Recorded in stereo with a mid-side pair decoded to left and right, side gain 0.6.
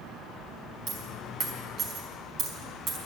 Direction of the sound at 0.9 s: 50° right.